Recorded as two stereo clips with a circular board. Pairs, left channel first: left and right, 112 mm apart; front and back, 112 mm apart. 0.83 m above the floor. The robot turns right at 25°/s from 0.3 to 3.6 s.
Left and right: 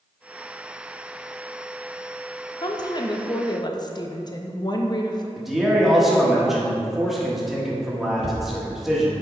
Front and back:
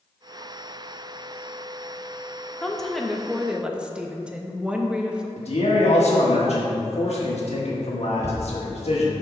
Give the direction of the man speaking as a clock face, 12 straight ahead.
12 o'clock.